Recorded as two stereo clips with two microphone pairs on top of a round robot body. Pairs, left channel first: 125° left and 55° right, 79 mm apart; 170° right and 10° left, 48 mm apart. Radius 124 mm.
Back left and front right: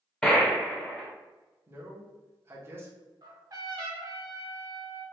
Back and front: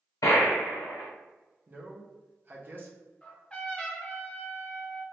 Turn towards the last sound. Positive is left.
turn(degrees=-95)